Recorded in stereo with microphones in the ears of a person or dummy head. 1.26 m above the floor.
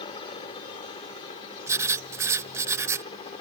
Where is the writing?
15° right (ahead or behind).